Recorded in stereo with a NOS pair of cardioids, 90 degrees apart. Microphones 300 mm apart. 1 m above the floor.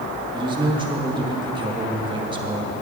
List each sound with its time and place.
0.3 s a man speaking: 15° right, 1.4 m